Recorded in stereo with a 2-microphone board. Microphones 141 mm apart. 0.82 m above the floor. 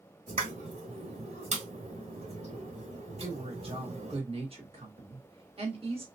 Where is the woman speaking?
40° right (ahead or behind), 1.6 m.